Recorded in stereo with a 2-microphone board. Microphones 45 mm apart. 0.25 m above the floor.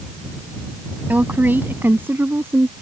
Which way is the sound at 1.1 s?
45° right (ahead or behind).